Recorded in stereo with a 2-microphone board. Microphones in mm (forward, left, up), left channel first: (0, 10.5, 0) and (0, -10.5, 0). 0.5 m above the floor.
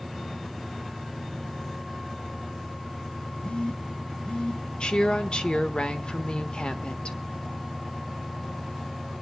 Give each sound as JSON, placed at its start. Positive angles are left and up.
{"t": 3.4, "sound": "a phone buzzing", "side_deg": 70, "distance_m": 1.2}
{"t": 4.8, "sound": "a woman speaking", "side_deg": 50, "distance_m": 1.4}